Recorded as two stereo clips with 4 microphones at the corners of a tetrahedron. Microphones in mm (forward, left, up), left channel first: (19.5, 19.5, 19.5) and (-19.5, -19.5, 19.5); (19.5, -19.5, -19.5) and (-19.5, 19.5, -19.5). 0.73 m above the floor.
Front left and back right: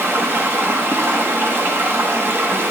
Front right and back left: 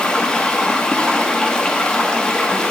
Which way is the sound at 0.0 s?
115° right.